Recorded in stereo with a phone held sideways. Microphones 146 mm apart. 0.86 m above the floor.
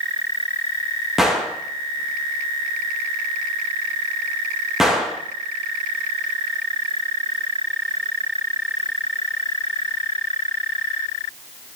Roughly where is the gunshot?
Centre.